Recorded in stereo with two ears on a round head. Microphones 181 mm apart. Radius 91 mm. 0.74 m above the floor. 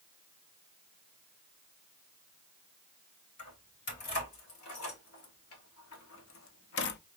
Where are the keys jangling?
80° left, 3 m; by 7.0 s 55° left (ahead or behind), 0.5 m.